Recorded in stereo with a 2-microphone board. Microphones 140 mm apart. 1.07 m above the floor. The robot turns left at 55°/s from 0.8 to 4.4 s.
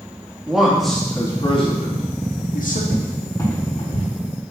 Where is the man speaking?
Centre (ahead or behind), 1.8 m; by 2.8 s 70° left (ahead or behind), 1.8 m.